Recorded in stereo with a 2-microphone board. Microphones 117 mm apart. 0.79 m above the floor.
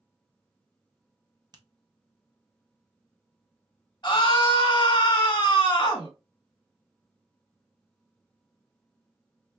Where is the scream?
35° left (ahead or behind), 1.2 m.